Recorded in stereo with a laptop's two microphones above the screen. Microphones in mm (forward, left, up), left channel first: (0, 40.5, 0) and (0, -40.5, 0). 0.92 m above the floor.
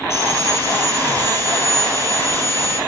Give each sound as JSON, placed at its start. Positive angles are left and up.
{"t": 0.1, "sound": "sawing", "side_deg": 35, "distance_m": 7.0}